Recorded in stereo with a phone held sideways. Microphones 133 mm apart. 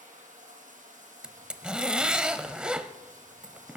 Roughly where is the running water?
Right.